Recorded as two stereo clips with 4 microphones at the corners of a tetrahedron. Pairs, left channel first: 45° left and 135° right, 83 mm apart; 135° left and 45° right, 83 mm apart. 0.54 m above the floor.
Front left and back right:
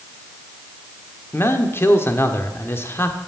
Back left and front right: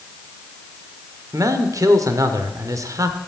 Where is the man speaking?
10° right, 1.1 m.